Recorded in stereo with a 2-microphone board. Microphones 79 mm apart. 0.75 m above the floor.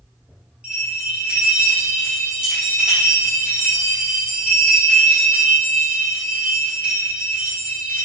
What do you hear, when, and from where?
0.6 s a bell: 15° right (ahead or behind), 4 m